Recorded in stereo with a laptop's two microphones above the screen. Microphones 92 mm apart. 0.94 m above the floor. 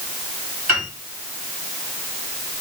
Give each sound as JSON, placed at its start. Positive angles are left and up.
{"t": 0.7, "sound": "a piano", "side_deg": -20, "distance_m": 2.5}